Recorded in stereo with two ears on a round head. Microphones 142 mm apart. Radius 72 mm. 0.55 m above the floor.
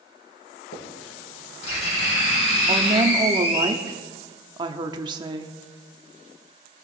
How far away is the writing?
About 5.5 m.